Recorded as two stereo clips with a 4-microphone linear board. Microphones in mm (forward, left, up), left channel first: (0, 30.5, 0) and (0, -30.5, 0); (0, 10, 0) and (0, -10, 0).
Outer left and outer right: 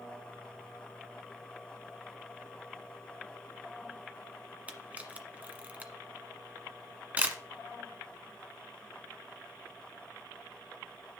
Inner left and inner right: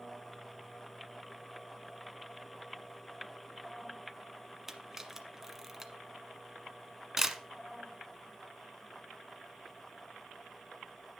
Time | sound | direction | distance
4.7 | a camera shutter | 25° right (ahead or behind) | 1.3 m